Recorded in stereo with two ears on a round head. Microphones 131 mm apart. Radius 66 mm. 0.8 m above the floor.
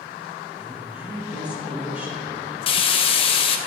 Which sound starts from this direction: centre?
A woman speaking, at 0.6 s.